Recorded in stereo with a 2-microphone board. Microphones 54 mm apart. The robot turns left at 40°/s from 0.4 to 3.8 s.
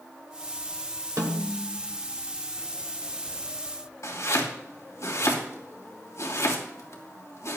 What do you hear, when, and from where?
1.2 s a snare drum: 70° right (ahead or behind), 2 m
4.0 s chopping: 70° left (ahead or behind), 2.5 m